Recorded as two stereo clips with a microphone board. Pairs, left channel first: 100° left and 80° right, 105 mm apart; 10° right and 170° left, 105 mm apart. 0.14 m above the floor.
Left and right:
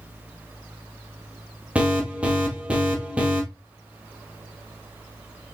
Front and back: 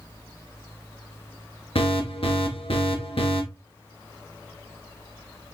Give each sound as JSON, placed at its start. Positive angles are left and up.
{"t": 1.8, "sound": "an alarm", "azimuth_deg": -5, "distance_m": 1.8}